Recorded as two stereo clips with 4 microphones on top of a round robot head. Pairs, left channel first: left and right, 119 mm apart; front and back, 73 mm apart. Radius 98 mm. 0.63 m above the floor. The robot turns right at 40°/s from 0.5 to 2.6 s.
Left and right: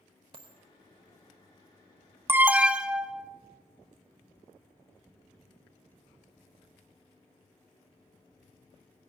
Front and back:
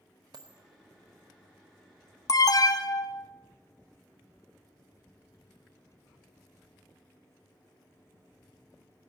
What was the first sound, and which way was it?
A dropped coin, 140° right.